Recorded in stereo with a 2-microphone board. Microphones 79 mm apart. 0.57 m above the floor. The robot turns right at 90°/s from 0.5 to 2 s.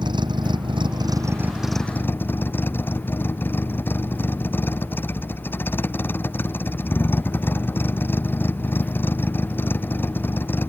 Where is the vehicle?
110° right; by 10.7 s 25° left.